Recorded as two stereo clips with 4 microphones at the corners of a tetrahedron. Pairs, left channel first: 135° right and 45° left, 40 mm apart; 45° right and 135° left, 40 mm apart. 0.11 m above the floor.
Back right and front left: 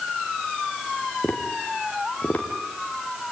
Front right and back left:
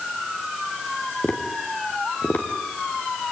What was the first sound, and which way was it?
Tapping, 85° right.